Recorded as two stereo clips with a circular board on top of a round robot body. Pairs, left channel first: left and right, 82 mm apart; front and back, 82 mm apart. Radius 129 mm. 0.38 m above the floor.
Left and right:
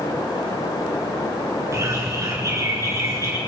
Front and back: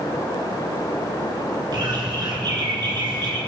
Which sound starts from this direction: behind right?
A bird, at 1.7 s.